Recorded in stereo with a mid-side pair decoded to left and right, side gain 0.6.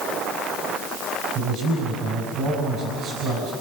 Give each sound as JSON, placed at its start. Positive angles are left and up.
{"t": 1.4, "sound": "a man speaking", "azimuth_deg": -55, "distance_m": 6.0}